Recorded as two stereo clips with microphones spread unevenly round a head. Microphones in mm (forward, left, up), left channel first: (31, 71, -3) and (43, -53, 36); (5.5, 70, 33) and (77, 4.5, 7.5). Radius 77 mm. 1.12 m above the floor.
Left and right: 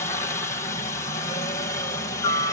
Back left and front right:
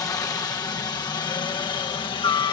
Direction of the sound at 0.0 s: 95° left.